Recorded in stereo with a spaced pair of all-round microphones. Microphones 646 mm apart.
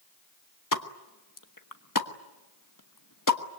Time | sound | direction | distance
0.7 | a pop | 30° left (ahead or behind) | 1.3 m